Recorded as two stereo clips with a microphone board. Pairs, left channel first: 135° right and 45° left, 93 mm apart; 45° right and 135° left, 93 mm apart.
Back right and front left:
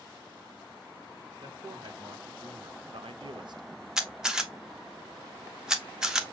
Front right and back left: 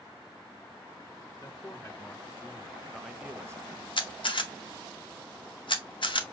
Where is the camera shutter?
40° right, 0.9 m.